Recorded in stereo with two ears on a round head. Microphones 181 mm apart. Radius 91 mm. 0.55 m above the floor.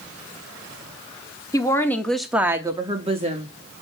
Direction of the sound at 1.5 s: 20° left (ahead or behind).